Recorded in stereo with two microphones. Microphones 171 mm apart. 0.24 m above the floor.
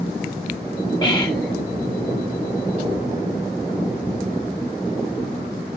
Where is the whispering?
30° left (ahead or behind), 1.4 m.